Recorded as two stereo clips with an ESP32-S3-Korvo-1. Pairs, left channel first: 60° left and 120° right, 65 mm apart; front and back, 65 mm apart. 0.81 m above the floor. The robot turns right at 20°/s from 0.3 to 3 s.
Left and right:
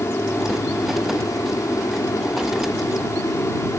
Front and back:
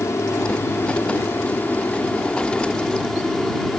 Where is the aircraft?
30° left; by 3.8 s 80° left.